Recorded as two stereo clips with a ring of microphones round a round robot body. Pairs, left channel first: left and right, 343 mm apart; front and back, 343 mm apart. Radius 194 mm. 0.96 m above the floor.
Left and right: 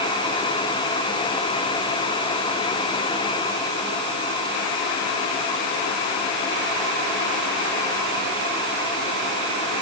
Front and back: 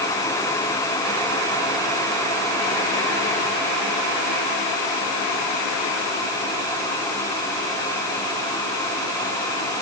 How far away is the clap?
I don't hear a clap.